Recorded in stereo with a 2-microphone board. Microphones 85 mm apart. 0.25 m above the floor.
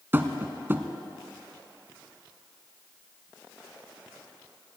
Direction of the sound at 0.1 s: 25° right (ahead or behind).